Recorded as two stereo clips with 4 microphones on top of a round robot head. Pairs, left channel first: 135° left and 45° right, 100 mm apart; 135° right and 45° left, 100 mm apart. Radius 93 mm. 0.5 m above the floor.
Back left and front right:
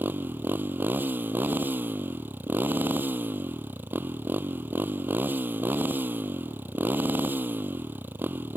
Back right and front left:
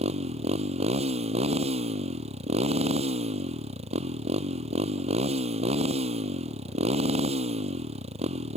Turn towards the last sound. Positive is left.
turn(degrees=25)